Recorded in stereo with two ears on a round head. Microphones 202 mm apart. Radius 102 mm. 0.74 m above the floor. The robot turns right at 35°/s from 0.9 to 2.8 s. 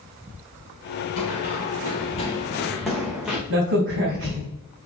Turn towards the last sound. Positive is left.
turn(degrees=-55)  # may be behind; listen again after turning